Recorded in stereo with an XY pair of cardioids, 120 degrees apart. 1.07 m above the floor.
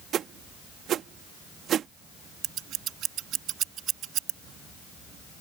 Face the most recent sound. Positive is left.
turn(degrees=-70)